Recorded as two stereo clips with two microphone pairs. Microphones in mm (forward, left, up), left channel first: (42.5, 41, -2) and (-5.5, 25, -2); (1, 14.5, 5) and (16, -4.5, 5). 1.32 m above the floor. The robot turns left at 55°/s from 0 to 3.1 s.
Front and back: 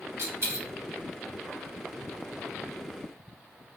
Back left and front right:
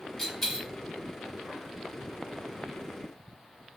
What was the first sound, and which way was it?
A dropped coin, 145° right.